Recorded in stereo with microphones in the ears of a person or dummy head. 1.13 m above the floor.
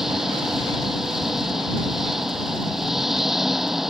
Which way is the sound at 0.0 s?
Centre (ahead or behind).